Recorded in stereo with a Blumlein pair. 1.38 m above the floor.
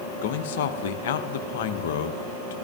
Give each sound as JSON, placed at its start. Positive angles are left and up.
{"t": 0.2, "sound": "a man speaking", "azimuth_deg": 55, "distance_m": 0.7}